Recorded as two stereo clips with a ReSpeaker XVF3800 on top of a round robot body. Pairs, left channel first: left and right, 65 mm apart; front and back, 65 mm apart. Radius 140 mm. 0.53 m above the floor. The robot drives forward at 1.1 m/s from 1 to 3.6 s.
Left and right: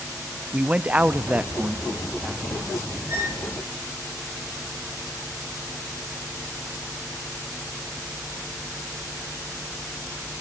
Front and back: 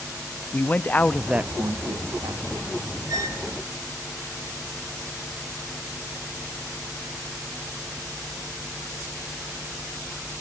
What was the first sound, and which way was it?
A man speaking, 40° right.